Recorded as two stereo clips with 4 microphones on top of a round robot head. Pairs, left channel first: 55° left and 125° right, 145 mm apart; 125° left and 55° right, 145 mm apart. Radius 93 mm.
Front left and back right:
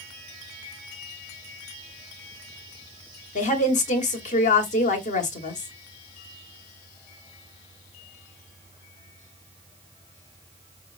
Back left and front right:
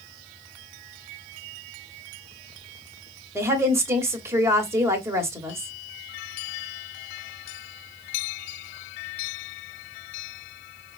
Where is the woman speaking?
15° left, 1.1 m.